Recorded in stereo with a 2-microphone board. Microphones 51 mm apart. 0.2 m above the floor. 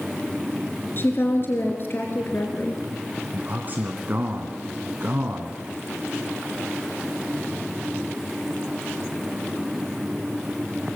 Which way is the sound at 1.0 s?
45° left (ahead or behind).